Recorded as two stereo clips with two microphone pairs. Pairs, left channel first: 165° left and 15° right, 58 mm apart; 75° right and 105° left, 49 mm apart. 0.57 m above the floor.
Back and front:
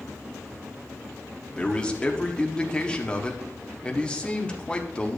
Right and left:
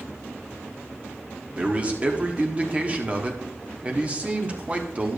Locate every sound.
1.5 s a man speaking: 115° left, 1.2 m